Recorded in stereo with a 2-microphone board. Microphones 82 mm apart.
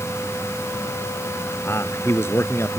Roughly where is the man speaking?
Left.